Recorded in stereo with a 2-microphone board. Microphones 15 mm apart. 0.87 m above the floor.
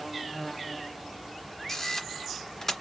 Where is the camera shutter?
30° left (ahead or behind), 1.9 m.